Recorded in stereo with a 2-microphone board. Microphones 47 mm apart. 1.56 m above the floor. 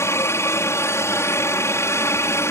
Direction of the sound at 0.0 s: 70° left (ahead or behind).